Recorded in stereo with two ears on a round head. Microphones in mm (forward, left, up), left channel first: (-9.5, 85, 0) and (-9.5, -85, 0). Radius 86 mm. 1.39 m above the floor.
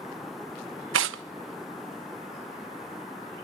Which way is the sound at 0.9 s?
70° right (ahead or behind).